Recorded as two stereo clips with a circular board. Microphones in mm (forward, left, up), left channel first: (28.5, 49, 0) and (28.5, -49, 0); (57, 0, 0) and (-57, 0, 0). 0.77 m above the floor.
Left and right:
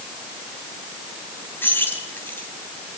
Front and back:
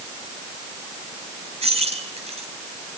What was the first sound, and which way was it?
Keys jangling, 160° left.